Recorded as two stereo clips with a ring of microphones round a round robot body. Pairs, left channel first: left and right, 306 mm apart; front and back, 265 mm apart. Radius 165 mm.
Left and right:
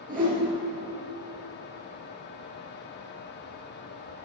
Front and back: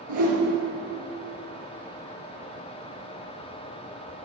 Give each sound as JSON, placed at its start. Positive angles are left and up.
{"t": 0.1, "sound": "a whoosh", "azimuth_deg": -155, "distance_m": 4.5}